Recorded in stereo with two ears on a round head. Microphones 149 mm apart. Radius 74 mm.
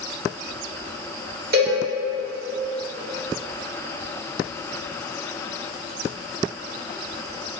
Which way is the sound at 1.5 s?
65° right (ahead or behind).